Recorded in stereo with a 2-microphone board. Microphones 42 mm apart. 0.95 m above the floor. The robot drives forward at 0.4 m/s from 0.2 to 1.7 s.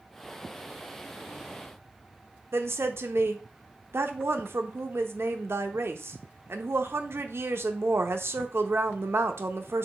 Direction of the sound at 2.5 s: 70° right (ahead or behind).